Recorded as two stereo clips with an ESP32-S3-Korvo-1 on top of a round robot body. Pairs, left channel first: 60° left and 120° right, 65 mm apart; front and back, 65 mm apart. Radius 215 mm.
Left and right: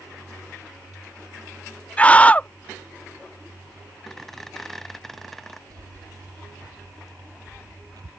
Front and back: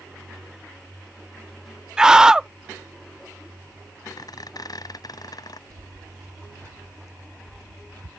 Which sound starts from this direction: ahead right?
A squeak, at 4.1 s.